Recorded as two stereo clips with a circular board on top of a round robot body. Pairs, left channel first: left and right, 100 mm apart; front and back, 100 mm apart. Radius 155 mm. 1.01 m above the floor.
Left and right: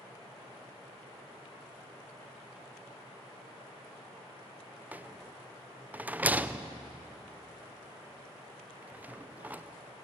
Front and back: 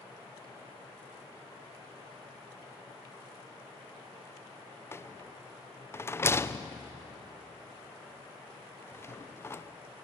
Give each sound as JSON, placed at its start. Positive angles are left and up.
{"t": 4.9, "sound": "a rattle", "azimuth_deg": -35, "distance_m": 0.7}